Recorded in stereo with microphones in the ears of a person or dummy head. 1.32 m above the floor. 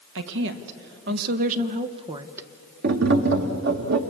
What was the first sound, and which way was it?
A woman speaking, 75° right (ahead or behind).